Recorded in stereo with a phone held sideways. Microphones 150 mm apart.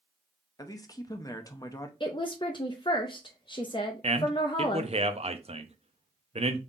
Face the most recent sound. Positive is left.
turn(degrees=-45)  # may be behind; listen again after turning